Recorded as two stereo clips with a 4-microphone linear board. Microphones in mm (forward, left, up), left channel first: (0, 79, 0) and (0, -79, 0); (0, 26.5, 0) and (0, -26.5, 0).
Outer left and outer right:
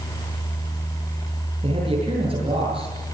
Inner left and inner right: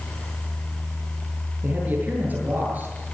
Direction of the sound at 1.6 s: 35° right (ahead or behind).